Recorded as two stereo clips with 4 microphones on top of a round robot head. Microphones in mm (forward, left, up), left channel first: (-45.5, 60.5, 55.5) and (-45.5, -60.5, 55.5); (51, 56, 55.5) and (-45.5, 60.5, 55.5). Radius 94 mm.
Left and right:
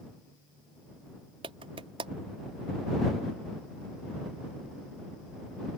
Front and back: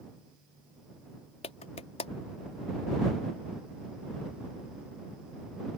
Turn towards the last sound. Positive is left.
turn(degrees=-35)